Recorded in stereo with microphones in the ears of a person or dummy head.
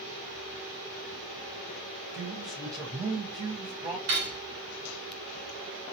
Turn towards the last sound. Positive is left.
turn(degrees=-70)  # may be behind; listen again after turning